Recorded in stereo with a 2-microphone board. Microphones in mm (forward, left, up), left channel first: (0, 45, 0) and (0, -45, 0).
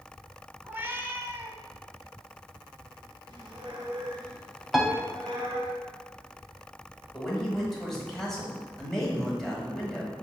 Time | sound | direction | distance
0.6 | a cat meowing | 25° right (ahead or behind) | 0.5 m
3.3 | a squeak | 45° right (ahead or behind) | 1.7 m
4.7 | a piano | 5° right (ahead or behind) | 0.5 m
7.1 | a man speaking | 5° left (ahead or behind) | 1.2 m